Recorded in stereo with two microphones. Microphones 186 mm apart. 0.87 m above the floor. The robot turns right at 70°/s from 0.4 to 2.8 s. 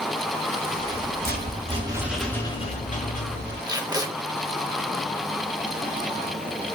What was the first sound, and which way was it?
A rattle, 100° right.